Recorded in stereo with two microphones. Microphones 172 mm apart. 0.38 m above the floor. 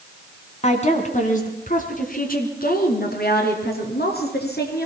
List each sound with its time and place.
0.6 s a woman speaking: 40° left (ahead or behind), 3 m; by 4.9 s 70° left (ahead or behind), 5 m